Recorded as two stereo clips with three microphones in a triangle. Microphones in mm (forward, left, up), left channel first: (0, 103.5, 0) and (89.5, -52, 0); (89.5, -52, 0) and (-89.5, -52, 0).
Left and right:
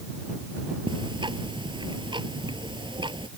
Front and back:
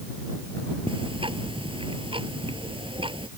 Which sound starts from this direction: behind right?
Ticking, at 0.9 s.